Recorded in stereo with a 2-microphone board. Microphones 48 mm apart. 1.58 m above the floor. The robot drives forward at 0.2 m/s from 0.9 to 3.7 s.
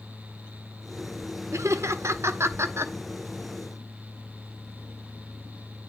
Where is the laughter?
80° right, 0.6 m; by 2.9 s 60° right (ahead or behind), 0.7 m.